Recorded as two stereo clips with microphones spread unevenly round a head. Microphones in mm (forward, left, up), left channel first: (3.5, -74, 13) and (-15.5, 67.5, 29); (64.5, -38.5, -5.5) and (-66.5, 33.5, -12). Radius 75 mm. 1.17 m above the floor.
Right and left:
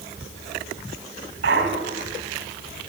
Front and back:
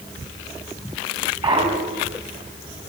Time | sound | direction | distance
1.4 | a clunk | 95° left | 3.5 m